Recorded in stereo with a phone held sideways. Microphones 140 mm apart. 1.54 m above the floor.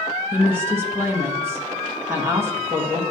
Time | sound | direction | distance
0.3 | a woman speaking | 20° right (ahead or behind) | 1.3 m